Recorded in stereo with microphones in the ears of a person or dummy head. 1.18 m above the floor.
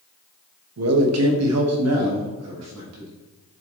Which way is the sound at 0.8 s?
75° right (ahead or behind).